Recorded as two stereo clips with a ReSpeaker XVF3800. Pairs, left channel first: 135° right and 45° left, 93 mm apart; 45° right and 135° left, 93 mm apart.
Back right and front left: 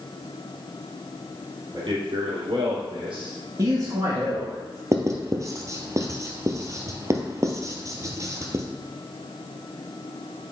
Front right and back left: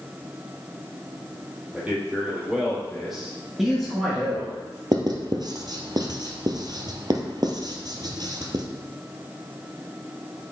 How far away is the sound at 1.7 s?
About 3.5 m.